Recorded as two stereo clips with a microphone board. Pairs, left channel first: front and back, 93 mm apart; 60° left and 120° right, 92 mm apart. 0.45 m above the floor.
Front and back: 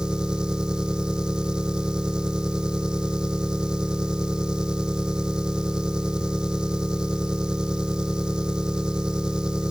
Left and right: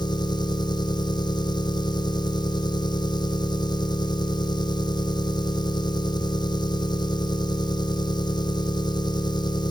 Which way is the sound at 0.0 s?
100° left.